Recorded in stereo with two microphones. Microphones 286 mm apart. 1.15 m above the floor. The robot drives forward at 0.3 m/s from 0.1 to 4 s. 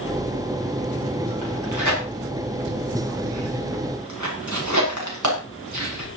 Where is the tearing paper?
90° right, 7.5 m; by 6.1 s 80° right, 7.5 m.